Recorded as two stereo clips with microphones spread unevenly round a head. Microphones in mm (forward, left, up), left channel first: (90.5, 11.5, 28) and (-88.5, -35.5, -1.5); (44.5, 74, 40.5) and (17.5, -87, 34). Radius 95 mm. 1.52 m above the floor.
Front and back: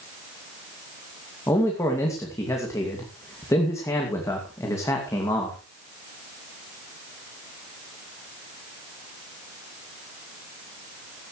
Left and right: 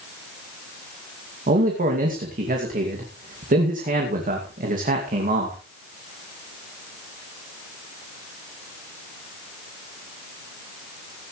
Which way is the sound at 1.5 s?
60° right.